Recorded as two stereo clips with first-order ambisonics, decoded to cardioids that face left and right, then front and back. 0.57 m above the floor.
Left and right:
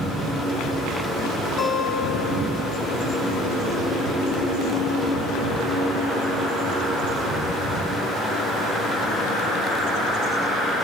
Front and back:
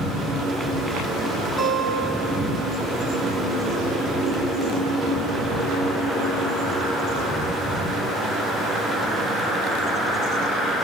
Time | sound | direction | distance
1.6 | a guitar | 125° left | 1.4 m